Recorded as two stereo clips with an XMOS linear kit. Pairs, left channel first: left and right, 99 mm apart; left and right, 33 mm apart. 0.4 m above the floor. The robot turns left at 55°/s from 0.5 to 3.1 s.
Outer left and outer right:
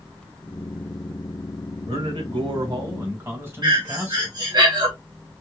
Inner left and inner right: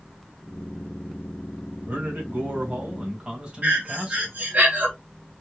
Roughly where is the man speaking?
Right.